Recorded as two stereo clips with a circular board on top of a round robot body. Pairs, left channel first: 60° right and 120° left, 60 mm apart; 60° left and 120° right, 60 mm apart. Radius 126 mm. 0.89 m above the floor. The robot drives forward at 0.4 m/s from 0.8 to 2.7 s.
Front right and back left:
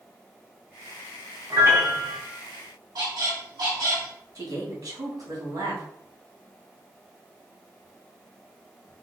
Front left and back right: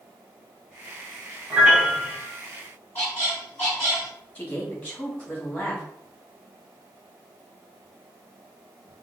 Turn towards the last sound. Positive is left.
turn(degrees=125)